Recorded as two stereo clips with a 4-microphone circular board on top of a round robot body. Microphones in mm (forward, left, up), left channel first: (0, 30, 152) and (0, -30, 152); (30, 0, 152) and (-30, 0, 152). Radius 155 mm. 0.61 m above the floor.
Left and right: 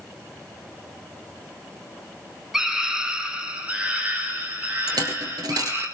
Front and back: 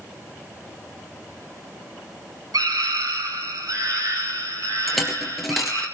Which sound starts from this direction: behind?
A scream, at 2.5 s.